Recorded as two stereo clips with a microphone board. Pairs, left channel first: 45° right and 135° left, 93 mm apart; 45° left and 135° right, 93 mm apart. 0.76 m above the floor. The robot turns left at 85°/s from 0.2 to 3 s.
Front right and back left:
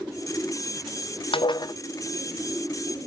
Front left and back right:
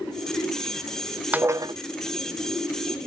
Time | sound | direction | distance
1.3 | dishes clattering | 60° right | 0.6 m